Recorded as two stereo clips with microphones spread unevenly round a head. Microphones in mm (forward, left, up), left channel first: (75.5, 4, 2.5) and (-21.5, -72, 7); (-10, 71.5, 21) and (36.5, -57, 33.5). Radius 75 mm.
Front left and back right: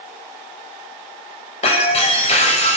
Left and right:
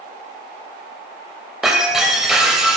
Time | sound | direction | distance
1.6 | breaking glass | 15° left | 2 m